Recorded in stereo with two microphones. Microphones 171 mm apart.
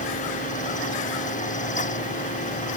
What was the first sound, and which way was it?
Only background noise.